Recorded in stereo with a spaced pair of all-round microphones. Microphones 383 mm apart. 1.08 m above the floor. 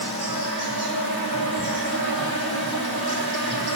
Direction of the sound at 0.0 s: 75° right (ahead or behind).